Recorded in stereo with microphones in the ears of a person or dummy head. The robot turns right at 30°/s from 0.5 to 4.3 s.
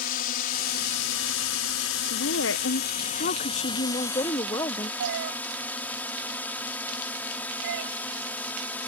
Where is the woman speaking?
90° left; by 4.9 s 155° left.